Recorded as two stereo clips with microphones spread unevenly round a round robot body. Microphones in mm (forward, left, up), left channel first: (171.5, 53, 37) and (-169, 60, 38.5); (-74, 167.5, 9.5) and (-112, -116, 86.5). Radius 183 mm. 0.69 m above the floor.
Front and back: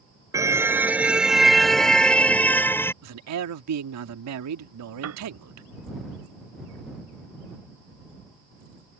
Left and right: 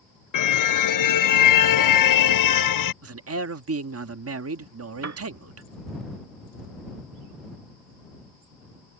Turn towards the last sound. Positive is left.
turn(degrees=-130)